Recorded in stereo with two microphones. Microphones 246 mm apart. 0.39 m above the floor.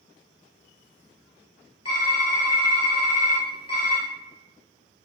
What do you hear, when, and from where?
1.9 s typing on a keyboard: 85° left, 1.3 m